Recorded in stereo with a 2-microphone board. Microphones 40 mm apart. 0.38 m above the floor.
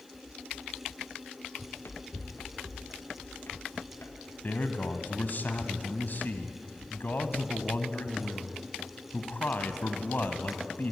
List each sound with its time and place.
1.6 s running footsteps: 70° left (ahead or behind), 1.6 m; by 5.3 s 85° left, 5 m
4.4 s a man speaking: 50° left (ahead or behind), 2 m